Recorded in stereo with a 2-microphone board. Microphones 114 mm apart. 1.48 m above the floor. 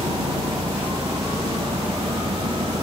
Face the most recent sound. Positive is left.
turn(degrees=-55)  # may be behind; listen again after turning